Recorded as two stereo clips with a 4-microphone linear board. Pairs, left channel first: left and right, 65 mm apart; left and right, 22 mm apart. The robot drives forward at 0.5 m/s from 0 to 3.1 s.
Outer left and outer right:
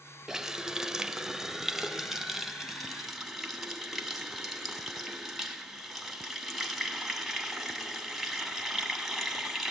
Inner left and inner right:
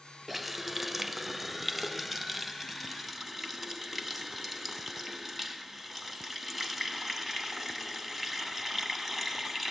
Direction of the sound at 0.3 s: 5° right (ahead or behind).